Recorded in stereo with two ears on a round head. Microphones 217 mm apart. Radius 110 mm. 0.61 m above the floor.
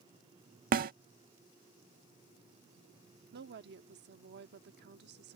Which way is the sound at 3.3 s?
50° right (ahead or behind).